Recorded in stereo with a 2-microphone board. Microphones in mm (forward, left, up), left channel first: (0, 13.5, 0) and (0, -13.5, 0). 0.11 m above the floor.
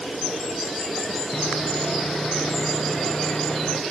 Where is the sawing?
35° left (ahead or behind), 1.1 m.